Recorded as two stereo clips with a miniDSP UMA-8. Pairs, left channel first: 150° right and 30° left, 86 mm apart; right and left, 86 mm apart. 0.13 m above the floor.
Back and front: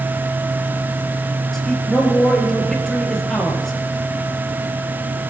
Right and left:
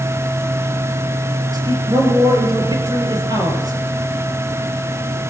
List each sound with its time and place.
1.5 s a man speaking: 120° left, 3 m